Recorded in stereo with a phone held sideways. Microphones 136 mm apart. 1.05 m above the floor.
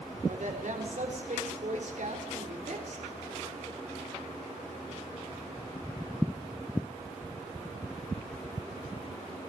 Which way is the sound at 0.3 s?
65° right (ahead or behind).